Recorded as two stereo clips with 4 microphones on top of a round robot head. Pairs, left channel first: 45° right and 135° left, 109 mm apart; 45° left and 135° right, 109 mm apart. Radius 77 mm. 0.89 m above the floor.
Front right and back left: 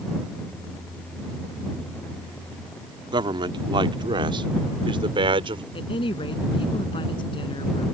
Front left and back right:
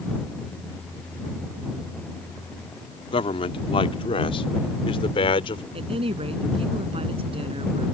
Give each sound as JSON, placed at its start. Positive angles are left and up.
{"t": 3.1, "sound": "a man speaking", "azimuth_deg": 85}
{"t": 5.7, "sound": "a woman speaking", "azimuth_deg": -95}